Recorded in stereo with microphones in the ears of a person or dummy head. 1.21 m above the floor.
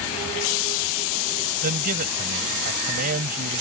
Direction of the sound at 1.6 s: 50° right (ahead or behind).